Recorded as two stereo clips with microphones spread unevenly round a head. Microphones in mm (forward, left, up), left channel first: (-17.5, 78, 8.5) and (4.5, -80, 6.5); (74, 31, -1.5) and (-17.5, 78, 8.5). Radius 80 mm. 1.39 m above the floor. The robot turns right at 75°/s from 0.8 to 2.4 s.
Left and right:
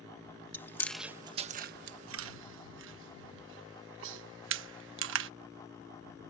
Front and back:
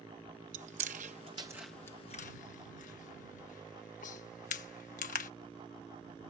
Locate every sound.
0.5 s chewing: 175° left; by 5.3 s 65° right